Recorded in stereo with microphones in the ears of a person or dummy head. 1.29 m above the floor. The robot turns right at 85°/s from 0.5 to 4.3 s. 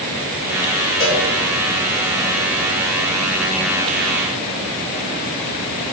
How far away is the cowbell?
About 3.5 m.